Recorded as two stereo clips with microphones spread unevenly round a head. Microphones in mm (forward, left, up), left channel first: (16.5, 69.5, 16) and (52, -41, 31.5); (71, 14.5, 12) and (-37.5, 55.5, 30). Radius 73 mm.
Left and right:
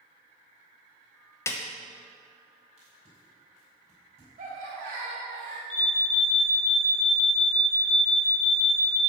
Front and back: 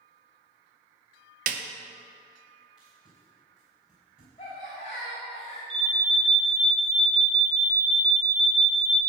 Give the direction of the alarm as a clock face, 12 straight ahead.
8 o'clock.